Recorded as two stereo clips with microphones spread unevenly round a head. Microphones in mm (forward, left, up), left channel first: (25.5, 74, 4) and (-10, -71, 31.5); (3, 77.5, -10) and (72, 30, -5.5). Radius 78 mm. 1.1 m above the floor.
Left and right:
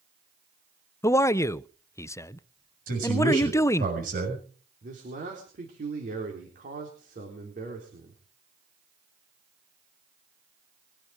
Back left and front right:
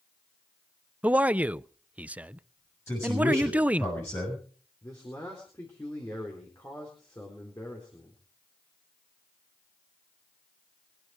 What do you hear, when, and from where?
1.0 s a man speaking: 35° left, 0.5 m
2.9 s a man speaking: 140° right, 6.5 m
4.8 s a man speaking: 145° right, 4 m